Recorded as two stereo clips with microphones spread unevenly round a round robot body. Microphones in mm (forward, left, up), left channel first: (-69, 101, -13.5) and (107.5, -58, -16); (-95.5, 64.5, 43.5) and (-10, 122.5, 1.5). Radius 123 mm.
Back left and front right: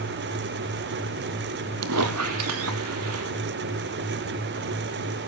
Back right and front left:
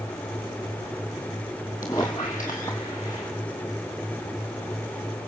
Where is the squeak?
75° right, 1.2 m.